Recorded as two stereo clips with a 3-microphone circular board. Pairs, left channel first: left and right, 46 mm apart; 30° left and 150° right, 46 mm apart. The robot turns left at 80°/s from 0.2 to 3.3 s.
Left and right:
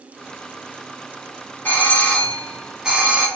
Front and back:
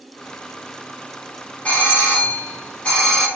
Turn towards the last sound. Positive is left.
turn(degrees=-55)